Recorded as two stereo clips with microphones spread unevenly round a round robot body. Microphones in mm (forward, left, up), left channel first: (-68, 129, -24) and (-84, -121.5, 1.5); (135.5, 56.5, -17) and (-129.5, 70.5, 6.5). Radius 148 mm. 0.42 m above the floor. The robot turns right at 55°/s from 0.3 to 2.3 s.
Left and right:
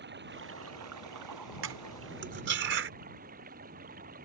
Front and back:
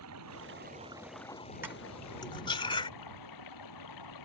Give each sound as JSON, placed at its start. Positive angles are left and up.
{"t": 0.0, "sound": "running water", "azimuth_deg": -140}
{"t": 1.6, "sound": "cutlery clinking", "azimuth_deg": -100}